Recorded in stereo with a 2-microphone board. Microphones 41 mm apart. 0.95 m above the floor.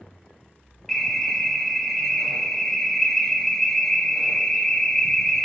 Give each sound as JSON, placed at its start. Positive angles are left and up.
{"t": 0.9, "sound": "an alarm", "side_deg": 5, "distance_m": 1.0}